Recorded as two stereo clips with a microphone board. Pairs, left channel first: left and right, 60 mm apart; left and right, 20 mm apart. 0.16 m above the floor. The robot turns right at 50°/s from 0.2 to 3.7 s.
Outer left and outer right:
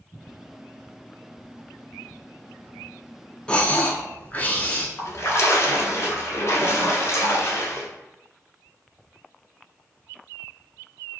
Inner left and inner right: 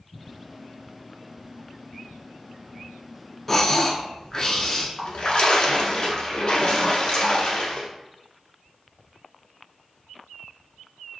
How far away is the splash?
About 0.9 m.